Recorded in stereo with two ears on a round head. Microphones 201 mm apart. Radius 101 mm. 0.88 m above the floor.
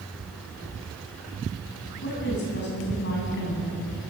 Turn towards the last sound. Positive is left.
turn(degrees=55)  # may be behind; listen again after turning